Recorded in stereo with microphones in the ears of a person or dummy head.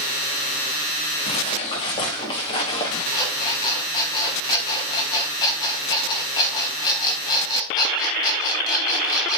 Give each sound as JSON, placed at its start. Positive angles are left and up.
{"t": 1.3, "sound": "footsteps", "side_deg": 40, "distance_m": 4.0}
{"t": 3.1, "sound": "an alarm clock", "side_deg": 30, "distance_m": 4.0}